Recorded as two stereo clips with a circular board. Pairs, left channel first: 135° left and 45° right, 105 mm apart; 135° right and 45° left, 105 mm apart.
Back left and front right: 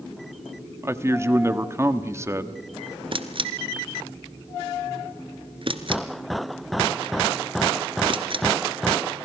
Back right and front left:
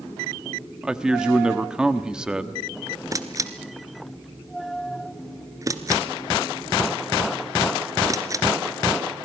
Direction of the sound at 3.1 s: 10° right.